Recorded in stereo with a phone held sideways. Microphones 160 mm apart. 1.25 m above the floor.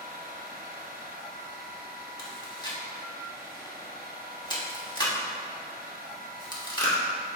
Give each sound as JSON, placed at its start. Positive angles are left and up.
{"t": 0.0, "sound": "a machine running", "side_deg": -65, "distance_m": 1.0}
{"t": 2.2, "sound": "chewing", "side_deg": 25, "distance_m": 1.2}